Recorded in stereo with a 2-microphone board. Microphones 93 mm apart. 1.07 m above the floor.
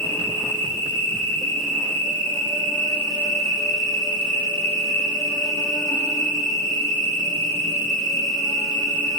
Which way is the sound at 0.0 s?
35° left (ahead or behind).